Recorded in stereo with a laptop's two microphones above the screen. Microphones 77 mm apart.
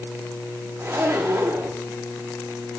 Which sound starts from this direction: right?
A zipper, at 0.8 s.